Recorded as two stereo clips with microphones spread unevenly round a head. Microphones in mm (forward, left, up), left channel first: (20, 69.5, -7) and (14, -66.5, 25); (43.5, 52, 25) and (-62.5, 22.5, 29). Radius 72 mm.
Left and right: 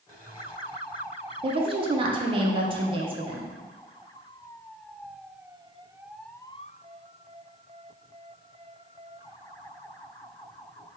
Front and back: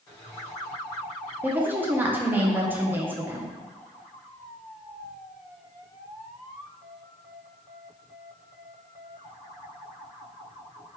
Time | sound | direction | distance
1.4 | a woman speaking | 110° right | 0.5 m